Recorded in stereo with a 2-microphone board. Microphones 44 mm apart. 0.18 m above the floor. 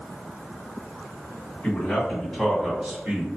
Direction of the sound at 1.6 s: 30° left (ahead or behind).